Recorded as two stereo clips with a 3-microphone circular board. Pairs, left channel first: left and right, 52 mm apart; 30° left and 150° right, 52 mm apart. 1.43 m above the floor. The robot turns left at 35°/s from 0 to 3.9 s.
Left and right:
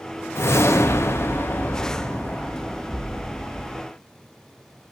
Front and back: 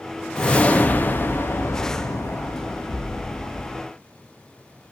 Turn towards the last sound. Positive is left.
turn(degrees=-25)